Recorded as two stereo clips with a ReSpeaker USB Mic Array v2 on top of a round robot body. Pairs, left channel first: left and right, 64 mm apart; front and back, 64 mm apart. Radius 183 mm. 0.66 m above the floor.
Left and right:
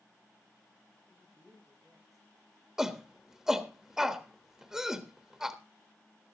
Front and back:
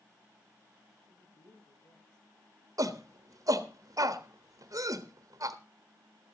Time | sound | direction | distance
1.1 | a woman speaking | straight ahead | 8.5 m
2.8 | a shout | 170° right | 1.4 m